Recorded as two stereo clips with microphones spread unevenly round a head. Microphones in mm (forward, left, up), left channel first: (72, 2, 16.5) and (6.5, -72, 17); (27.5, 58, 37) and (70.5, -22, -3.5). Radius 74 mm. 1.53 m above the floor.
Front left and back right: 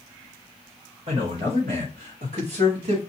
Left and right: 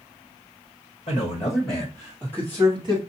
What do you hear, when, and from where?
1.1 s a man speaking: 175° left, 1.1 m; by 3.0 s 110° right, 1.3 m